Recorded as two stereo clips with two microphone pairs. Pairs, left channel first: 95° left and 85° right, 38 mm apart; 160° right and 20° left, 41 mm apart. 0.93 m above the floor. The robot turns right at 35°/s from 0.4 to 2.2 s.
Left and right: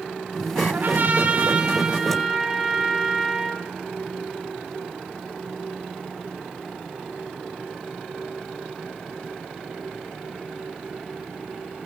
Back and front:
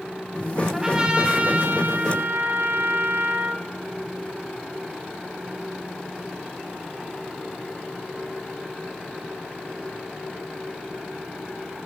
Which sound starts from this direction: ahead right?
A trumpet, at 0.7 s.